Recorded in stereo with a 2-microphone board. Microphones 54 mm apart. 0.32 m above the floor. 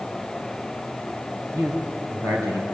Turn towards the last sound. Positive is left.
turn(degrees=-65)  # may be behind; listen again after turning